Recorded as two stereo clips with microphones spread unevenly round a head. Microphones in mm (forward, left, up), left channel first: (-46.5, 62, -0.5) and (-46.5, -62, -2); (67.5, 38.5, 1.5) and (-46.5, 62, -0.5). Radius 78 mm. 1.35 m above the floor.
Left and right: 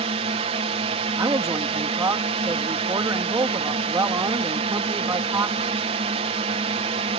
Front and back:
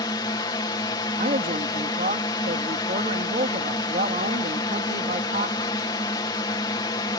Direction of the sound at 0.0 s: 65° right.